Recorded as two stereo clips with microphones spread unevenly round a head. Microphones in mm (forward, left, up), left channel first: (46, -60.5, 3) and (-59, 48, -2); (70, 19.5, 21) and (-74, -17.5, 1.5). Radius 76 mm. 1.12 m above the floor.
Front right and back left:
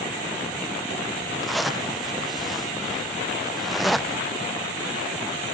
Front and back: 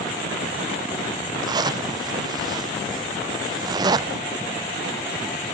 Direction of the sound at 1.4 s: 140° right.